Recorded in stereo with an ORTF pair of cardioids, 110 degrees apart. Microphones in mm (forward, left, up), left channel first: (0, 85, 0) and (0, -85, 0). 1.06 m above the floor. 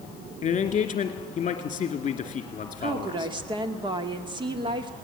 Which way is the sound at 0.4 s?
40° left.